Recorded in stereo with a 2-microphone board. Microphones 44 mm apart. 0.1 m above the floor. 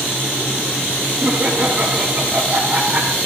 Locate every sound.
1.2 s laughter: 30° right (ahead or behind), 5 m